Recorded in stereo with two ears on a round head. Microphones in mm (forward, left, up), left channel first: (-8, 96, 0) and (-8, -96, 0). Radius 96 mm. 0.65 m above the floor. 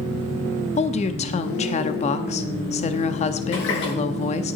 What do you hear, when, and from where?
0.8 s a woman speaking: 30° left (ahead or behind), 0.6 m
3.5 s a running tap: 55° left (ahead or behind), 7 m